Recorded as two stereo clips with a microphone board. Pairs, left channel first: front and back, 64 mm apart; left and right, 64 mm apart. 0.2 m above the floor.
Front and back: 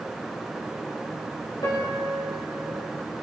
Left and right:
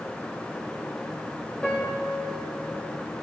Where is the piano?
15° left, 9.5 m.